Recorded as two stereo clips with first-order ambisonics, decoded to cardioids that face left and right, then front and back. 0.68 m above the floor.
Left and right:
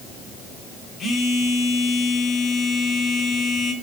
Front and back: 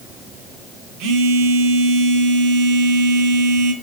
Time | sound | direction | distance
1.0 | a phone buzzing | 160° left | 0.7 m